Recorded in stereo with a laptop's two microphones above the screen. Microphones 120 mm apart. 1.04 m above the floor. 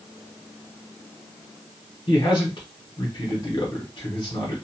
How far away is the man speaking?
About 0.8 m.